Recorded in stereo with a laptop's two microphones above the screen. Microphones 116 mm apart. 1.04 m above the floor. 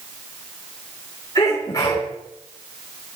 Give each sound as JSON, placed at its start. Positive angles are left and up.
{"t": 1.4, "sound": "a sneeze", "side_deg": 35, "distance_m": 3.5}